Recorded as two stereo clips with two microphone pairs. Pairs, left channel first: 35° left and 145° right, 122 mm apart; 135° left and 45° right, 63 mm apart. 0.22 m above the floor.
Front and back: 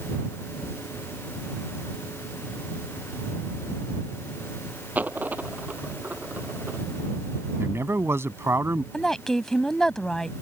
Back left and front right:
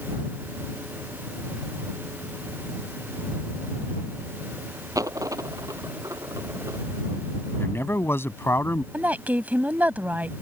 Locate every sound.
5.0 s a dropped coin: 70° right
7.6 s a man speaking: 155° left
8.9 s a woman speaking: 50° right